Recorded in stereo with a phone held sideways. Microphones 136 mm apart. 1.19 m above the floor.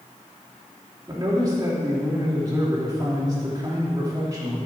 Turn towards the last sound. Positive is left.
turn(degrees=-25)  # may be behind; listen again after turning